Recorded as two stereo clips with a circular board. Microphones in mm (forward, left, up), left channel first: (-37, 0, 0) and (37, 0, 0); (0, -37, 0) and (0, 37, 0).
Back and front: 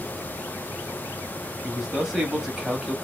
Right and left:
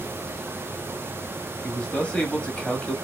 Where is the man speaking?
65° right, 0.9 m.